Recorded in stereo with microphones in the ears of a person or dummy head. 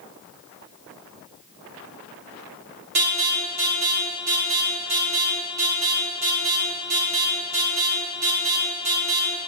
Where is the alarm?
50° right (ahead or behind), 4 m.